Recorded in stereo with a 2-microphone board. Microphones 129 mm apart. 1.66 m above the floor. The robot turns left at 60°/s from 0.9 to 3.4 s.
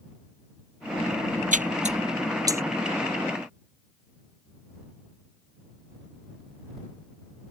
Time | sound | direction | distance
1.5 | a splash | 80° right | ?